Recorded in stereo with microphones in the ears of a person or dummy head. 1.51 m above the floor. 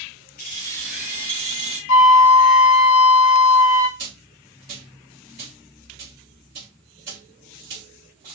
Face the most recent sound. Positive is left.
turn(degrees=-35)  # may be behind; listen again after turning